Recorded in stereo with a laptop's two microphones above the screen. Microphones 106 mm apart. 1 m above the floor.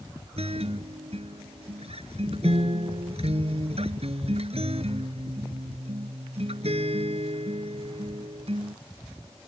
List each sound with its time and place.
0.4 s a guitar: 70° right (ahead or behind)